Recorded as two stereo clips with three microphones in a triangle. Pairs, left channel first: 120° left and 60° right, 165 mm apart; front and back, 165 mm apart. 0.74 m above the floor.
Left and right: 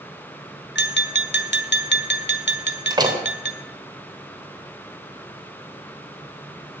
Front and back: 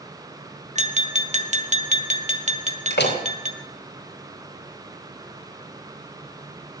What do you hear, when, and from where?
0.8 s tapping: 130° left, 1.6 m
2.9 s a door slam: 5° left, 2.5 m